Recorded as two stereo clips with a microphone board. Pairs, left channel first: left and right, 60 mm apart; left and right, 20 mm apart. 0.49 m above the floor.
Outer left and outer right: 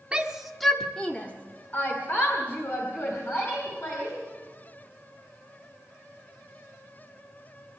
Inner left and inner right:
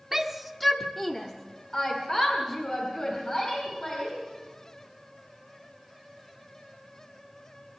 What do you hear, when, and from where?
0.1 s a shout: 15° right (ahead or behind), 1.3 m; by 4.2 s 45° left (ahead or behind), 4.5 m